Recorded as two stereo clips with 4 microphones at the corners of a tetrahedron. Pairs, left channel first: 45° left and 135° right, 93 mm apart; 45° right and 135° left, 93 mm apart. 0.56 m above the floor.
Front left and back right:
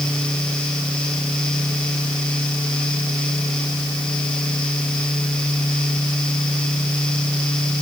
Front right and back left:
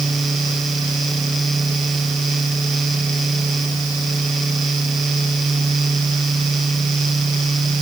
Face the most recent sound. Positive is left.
No sound to turn to.